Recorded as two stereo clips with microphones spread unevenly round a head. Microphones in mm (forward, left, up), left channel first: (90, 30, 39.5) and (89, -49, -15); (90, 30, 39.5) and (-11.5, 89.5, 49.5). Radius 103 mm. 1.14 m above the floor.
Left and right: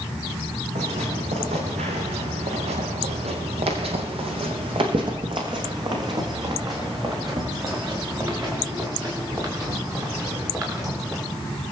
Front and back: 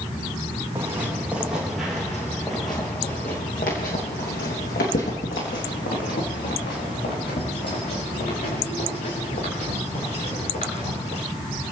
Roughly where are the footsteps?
Behind right.